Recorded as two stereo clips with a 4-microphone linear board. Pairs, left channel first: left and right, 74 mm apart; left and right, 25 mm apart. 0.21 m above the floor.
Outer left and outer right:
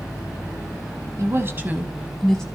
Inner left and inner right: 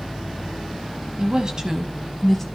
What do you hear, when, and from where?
1.2 s a woman speaking: 40° right (ahead or behind), 1.8 m; by 2.4 s 10° left (ahead or behind), 1.8 m